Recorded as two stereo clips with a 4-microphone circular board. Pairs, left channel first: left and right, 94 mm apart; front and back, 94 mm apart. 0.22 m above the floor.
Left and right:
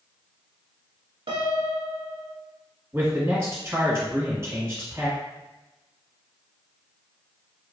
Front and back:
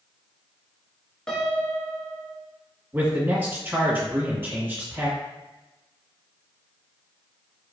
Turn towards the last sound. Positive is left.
turn(degrees=-130)